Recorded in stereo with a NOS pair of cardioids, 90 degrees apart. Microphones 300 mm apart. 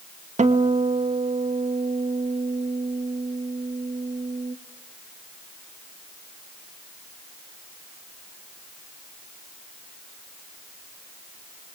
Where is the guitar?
25° right, 2.5 m.